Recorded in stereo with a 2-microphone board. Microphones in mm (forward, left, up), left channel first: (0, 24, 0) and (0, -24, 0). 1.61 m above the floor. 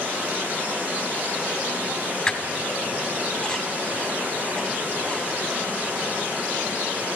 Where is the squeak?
15° left (ahead or behind), 1.3 m.